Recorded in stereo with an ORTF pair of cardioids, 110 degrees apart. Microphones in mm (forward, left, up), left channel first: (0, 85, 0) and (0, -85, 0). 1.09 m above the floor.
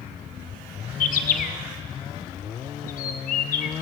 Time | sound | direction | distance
1.0 | a bird | 55° left | 0.6 m